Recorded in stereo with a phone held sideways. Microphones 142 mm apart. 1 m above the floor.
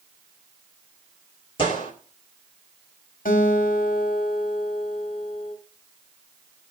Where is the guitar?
75° left (ahead or behind), 1.8 m.